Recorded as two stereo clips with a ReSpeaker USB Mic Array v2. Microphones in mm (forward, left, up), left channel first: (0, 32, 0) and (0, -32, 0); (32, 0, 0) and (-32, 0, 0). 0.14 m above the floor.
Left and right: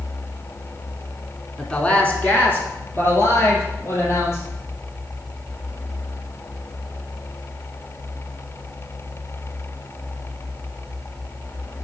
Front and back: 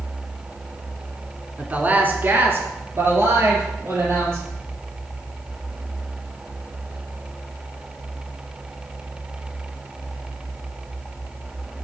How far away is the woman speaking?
About 1.2 m.